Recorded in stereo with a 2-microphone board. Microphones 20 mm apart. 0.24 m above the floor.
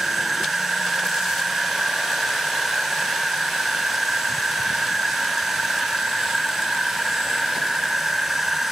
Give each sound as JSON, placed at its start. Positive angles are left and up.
{"t": 0.0, "sound": "an insect", "side_deg": -5}